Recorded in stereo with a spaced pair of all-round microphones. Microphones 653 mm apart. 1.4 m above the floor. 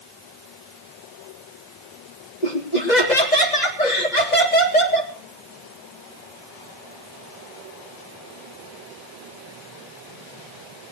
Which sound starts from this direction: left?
Laughter, at 2.4 s.